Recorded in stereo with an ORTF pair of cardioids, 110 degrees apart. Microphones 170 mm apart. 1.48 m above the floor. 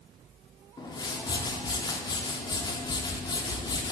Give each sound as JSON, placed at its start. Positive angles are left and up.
{"t": 0.8, "sound": "a whoosh", "azimuth_deg": 25, "distance_m": 0.6}